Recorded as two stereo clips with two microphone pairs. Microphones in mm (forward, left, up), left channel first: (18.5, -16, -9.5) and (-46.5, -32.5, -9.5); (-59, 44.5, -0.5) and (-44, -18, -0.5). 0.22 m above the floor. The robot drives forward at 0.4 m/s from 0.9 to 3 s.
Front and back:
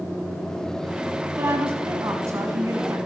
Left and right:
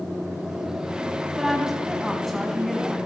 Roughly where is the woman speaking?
Behind.